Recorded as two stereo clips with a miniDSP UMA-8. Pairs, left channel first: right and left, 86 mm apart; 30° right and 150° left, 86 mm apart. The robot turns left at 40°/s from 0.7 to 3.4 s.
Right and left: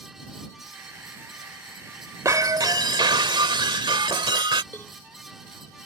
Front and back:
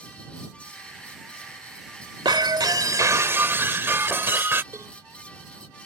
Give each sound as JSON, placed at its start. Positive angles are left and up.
{"t": 2.2, "sound": "breaking glass", "azimuth_deg": 135}
{"t": 4.7, "sound": "a cowbell", "azimuth_deg": -155}